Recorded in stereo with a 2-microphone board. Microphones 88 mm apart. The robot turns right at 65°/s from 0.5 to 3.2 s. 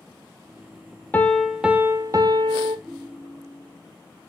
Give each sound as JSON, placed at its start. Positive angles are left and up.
{"t": 1.1, "sound": "a piano", "azimuth_deg": 155, "distance_m": 0.6}
{"t": 2.9, "sound": "a ringtone", "side_deg": 0, "distance_m": 0.9}